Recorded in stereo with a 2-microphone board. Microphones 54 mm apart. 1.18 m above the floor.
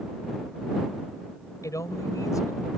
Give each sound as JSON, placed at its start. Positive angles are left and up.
{"t": 1.6, "sound": "a man speaking", "side_deg": 80}